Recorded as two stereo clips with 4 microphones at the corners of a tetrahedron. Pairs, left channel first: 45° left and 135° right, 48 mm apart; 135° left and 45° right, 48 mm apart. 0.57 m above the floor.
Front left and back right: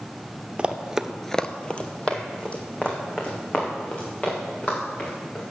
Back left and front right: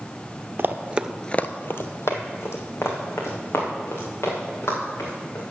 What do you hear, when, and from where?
0.6 s running footsteps: 70° right, 0.9 m; by 5.4 s 110° left, 5.5 m